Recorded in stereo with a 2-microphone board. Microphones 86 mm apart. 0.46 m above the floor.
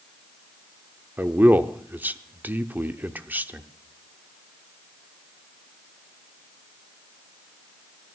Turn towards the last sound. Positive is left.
turn(degrees=-20)  # may be behind; listen again after turning